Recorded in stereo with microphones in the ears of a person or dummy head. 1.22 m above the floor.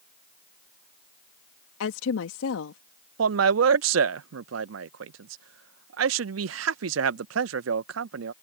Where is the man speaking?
75° right (ahead or behind).